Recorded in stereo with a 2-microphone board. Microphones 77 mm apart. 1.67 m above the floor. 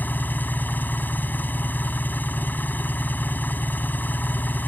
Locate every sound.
0.0 s an engine running: 25° left (ahead or behind)